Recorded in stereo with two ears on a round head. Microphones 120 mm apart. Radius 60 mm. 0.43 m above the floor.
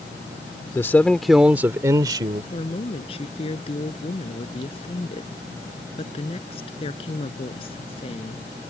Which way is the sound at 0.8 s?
20° left (ahead or behind).